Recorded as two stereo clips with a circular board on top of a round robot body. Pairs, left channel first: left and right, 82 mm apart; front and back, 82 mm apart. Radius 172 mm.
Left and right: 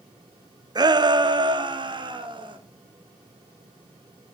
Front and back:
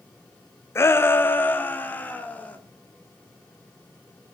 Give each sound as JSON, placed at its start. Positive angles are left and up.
{"t": 0.8, "sound": "a shout", "azimuth_deg": -55, "distance_m": 1.3}